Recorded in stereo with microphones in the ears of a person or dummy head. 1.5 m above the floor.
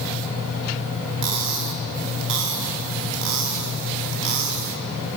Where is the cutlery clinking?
60° right (ahead or behind), 1.2 m.